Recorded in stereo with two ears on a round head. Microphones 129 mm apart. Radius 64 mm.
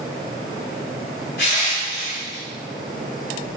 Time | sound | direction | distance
1.4 | crushing | 75° left (ahead or behind) | 5 m